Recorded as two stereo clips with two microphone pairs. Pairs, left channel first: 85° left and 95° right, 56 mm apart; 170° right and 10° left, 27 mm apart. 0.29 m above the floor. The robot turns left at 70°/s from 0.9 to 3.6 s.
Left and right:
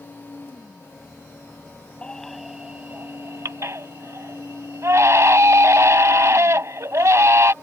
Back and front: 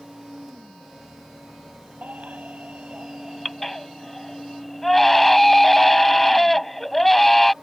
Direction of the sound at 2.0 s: 20° left.